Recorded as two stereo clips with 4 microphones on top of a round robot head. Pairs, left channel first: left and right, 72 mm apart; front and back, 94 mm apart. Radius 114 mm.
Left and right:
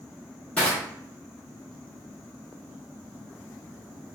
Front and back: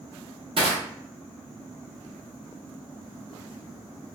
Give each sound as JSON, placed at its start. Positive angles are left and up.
{"t": 0.6, "sound": "crushing", "azimuth_deg": 160, "distance_m": 1.1}